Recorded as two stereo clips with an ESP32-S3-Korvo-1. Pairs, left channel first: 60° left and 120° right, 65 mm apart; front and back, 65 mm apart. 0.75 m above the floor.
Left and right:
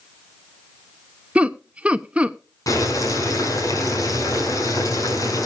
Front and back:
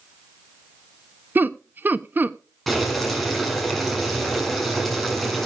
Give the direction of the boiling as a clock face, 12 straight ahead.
9 o'clock.